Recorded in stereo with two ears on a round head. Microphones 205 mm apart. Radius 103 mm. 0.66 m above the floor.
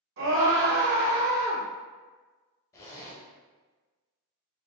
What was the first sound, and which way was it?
A scream, 65° right (ahead or behind).